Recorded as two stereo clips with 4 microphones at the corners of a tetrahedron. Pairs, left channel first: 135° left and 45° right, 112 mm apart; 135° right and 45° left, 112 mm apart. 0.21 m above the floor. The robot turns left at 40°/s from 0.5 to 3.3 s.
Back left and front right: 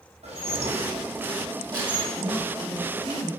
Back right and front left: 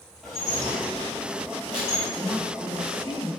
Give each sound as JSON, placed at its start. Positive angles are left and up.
{"t": 0.2, "sound": "dishes clattering", "azimuth_deg": -45, "distance_m": 3.5}
{"t": 2.1, "sound": "a woman speaking", "azimuth_deg": -50, "distance_m": 1.8}